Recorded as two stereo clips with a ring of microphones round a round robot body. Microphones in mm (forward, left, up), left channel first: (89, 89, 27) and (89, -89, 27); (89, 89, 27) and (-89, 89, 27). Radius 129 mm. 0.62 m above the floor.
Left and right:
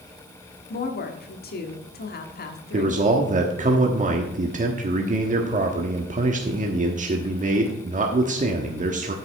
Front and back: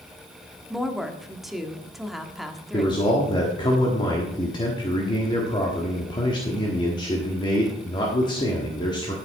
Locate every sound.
0.7 s a woman speaking: 90° left, 1.4 m
2.7 s a man speaking: 60° right, 1.3 m